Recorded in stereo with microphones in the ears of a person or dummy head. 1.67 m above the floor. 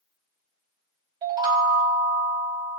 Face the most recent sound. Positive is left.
turn(degrees=-20)  # may be behind; listen again after turning